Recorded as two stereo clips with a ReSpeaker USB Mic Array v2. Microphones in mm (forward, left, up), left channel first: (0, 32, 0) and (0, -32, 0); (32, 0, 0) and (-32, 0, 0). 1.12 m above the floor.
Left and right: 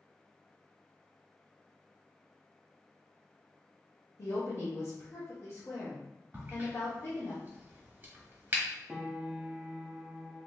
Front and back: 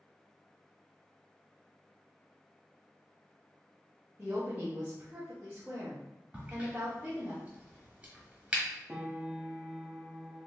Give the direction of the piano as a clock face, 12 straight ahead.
5 o'clock.